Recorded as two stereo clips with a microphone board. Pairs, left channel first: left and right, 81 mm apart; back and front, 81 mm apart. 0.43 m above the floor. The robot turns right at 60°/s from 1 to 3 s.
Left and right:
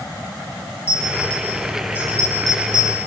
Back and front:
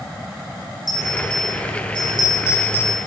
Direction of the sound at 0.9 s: 140° left.